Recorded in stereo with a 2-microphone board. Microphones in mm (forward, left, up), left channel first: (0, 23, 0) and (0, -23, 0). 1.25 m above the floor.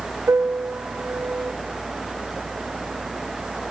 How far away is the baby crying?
No baby crying in this recording.